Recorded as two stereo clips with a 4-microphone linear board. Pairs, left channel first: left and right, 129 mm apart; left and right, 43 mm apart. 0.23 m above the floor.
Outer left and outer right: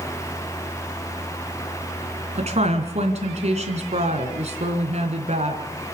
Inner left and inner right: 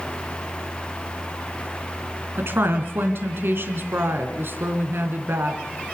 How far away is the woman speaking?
About 3 m.